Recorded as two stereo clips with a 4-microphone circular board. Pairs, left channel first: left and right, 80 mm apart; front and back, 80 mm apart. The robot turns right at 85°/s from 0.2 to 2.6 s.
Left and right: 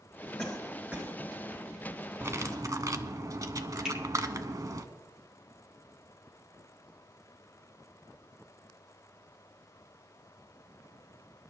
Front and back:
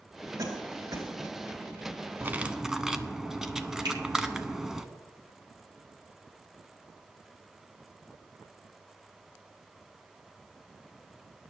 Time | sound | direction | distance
0.4 | a cough | 155° left | 3 m
2.2 | cutlery clinking | 130° right | 0.8 m
3.9 | a finger snap | 170° right | 6 m